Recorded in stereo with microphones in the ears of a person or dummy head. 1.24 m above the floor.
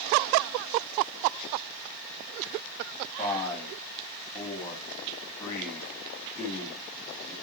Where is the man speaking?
15° left (ahead or behind), 2 m.